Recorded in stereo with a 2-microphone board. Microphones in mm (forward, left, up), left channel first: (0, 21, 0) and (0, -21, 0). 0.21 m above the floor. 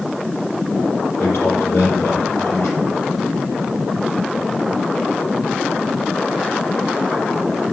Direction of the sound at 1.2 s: 65° left (ahead or behind).